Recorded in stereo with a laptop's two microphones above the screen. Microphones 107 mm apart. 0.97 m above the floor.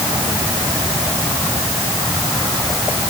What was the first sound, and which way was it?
Only background noise.